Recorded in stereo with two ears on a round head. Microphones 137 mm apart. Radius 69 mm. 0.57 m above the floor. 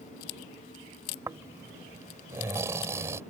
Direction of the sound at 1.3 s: 20° right (ahead or behind).